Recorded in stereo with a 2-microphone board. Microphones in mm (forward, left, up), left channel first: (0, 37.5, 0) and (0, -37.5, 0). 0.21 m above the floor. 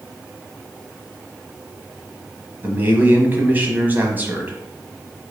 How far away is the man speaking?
About 1.1 m.